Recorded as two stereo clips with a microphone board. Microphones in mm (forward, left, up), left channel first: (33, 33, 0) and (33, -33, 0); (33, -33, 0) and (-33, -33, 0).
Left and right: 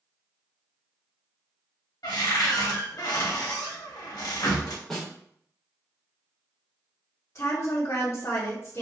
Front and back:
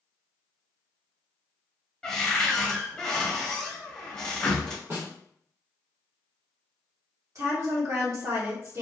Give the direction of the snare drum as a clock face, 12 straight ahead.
6 o'clock.